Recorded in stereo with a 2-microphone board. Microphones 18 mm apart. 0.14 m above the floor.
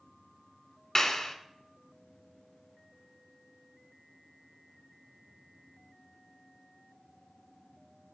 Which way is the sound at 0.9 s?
30° left (ahead or behind).